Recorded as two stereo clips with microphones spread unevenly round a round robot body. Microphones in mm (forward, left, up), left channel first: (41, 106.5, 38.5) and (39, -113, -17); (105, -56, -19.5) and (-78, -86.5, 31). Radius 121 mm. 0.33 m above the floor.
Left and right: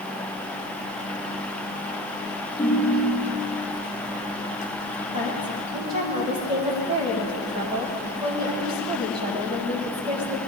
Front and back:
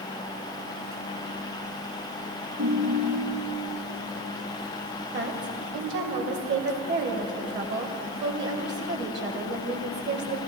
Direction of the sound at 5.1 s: 150° right.